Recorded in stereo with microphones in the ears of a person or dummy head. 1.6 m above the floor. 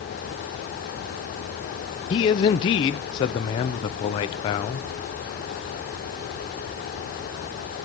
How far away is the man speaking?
About 0.6 m.